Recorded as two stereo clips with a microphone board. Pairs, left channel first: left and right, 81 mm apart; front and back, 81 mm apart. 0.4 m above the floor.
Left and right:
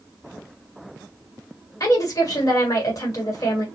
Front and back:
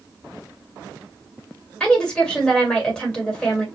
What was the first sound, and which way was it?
A woman speaking, 75° left.